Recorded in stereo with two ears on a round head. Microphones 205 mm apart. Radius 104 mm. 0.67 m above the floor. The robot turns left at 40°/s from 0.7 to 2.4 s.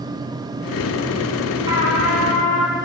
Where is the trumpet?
20° right (ahead or behind), 5 m; by 2.8 s 10° left (ahead or behind), 5 m.